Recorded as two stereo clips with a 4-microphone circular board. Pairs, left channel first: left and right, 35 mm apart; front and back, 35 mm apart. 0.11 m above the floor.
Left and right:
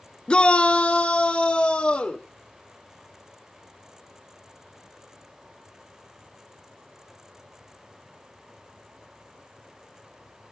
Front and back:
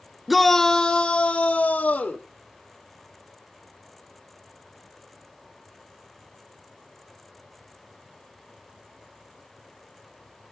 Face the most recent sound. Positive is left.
turn(degrees=40)